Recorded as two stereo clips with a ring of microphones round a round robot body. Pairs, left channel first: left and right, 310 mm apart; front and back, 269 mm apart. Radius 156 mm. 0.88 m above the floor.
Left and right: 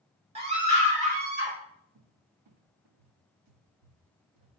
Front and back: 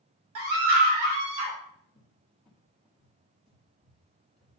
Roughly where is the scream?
Behind.